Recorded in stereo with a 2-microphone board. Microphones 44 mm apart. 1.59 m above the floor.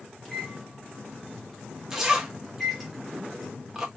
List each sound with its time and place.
0.2 s a microwave: centre (ahead or behind), 0.8 m
1.9 s a zipper: 10° right (ahead or behind), 0.6 m